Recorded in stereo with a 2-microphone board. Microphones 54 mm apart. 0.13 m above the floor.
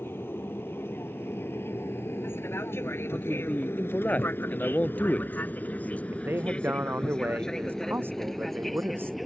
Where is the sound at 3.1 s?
30° left (ahead or behind).